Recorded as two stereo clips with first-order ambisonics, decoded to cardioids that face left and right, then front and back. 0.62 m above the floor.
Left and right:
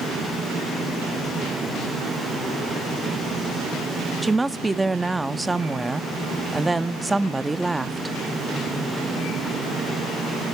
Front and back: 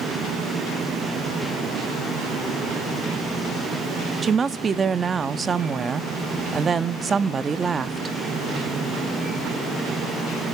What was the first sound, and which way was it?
A woman speaking, 150° right.